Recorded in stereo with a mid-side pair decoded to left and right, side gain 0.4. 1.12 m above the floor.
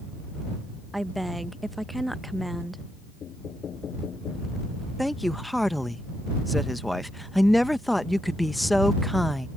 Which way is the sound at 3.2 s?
60° left.